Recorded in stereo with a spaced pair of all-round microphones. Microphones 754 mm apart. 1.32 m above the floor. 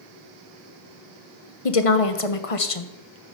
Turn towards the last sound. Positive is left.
turn(degrees=50)  # may be behind; listen again after turning